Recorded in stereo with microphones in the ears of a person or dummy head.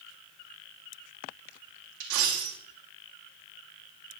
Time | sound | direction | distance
2.0 | a dropped coin | 75° right (ahead or behind) | 2 m